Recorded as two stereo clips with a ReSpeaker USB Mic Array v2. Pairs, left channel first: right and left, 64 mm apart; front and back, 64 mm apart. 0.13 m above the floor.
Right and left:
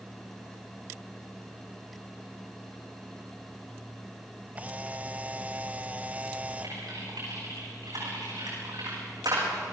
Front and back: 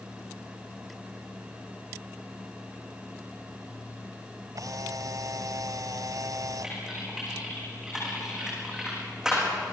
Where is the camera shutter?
155° left, 0.6 m.